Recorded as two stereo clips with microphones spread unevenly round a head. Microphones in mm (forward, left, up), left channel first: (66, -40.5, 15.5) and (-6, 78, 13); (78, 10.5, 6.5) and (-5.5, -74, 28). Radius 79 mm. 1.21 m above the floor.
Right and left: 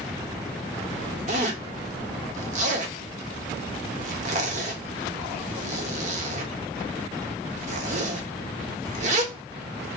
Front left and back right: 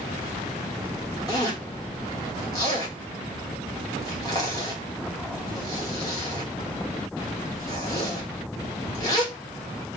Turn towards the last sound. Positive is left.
turn(degrees=115)